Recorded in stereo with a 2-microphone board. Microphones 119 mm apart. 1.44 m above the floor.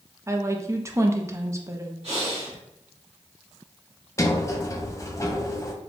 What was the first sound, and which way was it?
A woman speaking, 25° right (ahead or behind).